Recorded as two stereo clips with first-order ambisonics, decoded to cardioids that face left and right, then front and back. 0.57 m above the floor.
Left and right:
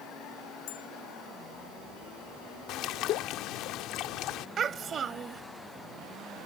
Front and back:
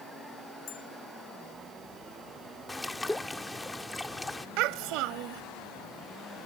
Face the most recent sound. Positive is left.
turn(degrees=-155)